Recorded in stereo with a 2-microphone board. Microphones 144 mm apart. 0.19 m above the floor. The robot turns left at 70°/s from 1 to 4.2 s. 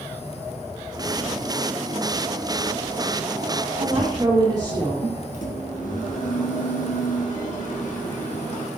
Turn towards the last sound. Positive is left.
turn(degrees=65)  # may be behind; listen again after turning